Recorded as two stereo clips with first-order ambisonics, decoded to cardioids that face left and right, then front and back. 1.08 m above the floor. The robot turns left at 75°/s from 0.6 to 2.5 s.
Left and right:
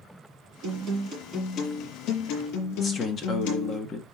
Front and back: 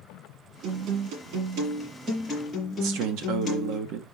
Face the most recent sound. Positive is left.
turn(degrees=155)